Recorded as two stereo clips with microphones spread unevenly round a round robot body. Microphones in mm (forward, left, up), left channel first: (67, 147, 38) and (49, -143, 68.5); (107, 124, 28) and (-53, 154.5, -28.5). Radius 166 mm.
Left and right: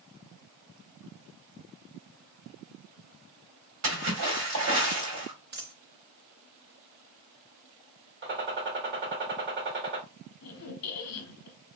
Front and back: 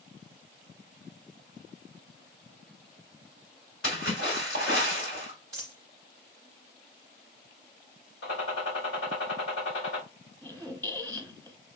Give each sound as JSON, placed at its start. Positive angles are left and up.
{"t": 3.8, "sound": "a splash", "azimuth_deg": -65, "distance_m": 1.9}
{"t": 5.5, "sound": "a dropped coin", "azimuth_deg": -105, "distance_m": 0.5}
{"t": 8.2, "sound": "a gunshot", "azimuth_deg": -40, "distance_m": 1.7}
{"t": 10.4, "sound": "a squeak", "azimuth_deg": 80, "distance_m": 0.9}